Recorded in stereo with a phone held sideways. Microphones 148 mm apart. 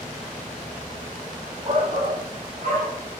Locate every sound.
1.6 s a shout: 45° right (ahead or behind), 3.5 m; by 3.0 s 55° right (ahead or behind), 5.5 m